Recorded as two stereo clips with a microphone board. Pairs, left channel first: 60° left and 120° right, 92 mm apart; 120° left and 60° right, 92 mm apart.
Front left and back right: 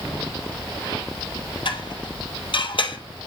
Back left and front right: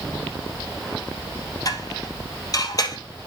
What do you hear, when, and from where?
1.6 s dishes clattering: 75° left, 2.5 m